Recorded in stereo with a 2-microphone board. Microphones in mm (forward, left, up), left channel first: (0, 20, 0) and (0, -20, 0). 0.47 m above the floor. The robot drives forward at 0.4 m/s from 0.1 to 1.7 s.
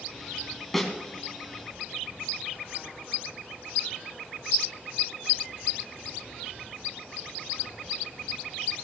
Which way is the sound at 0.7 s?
10° left (ahead or behind).